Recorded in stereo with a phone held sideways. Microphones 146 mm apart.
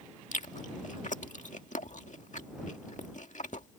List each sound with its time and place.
0.3 s chewing: 65° left (ahead or behind)